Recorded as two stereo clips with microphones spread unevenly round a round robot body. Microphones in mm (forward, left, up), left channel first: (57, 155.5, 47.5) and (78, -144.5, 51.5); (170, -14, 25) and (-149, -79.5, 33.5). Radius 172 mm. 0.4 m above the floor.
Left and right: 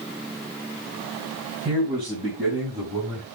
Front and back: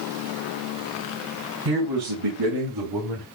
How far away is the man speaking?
About 4 m.